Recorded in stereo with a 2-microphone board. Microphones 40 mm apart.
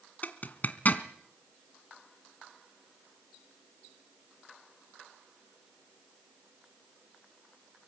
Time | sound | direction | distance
0.2 | a zipper | 45° left (ahead or behind) | 1.7 m